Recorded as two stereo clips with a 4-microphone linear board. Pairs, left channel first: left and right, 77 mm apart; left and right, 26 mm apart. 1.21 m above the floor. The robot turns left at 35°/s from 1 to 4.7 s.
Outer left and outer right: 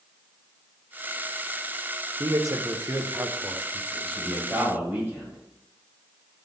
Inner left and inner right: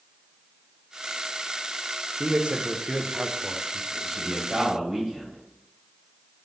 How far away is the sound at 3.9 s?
About 2.5 m.